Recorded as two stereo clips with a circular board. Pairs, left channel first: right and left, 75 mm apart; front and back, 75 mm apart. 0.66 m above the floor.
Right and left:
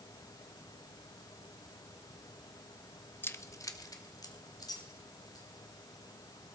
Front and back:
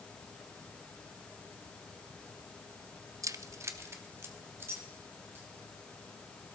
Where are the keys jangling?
145° right, 0.5 m; by 5.5 s 120° right, 3 m.